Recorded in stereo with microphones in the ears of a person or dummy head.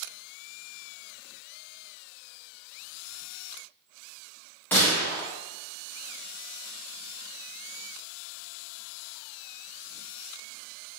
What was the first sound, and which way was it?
A gunshot, 5° left (ahead or behind).